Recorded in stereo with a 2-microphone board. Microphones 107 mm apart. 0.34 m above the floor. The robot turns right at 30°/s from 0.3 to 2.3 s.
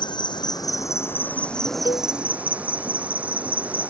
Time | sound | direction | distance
0.0 | an insect | 135° left | ?
1.9 | a cowbell | 45° left (ahead or behind) | ?